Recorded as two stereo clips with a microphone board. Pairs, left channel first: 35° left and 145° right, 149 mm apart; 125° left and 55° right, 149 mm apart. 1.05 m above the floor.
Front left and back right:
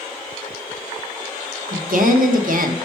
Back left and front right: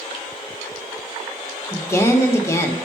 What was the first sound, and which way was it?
A woman speaking, 165° right.